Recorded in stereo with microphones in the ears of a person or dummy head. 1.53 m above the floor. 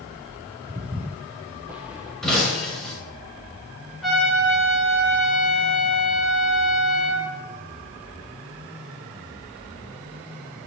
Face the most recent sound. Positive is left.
turn(degrees=0)  # may be behind; listen again after turning